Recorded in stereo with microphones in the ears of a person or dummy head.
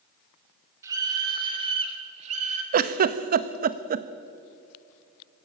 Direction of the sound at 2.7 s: 50° right (ahead or behind).